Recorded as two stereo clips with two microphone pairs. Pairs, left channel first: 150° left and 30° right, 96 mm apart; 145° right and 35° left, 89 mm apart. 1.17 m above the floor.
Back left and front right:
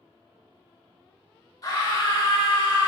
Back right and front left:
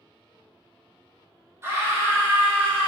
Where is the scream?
95° left, 2 m; by 2.9 s 105° left, 2.5 m.